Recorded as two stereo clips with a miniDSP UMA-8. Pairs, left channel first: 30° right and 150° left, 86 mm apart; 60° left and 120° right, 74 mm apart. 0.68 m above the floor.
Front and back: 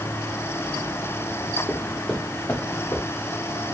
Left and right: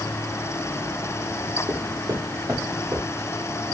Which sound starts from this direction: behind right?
Footsteps, at 1.7 s.